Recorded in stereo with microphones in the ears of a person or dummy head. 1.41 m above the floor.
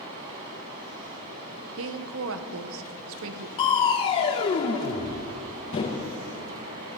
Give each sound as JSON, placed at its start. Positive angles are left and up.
{"t": 0.0, "sound": "running water", "side_deg": -20, "distance_m": 1.4}
{"t": 1.8, "sound": "a woman speaking", "side_deg": -75, "distance_m": 0.9}
{"t": 3.6, "sound": "crushing", "side_deg": 25, "distance_m": 0.8}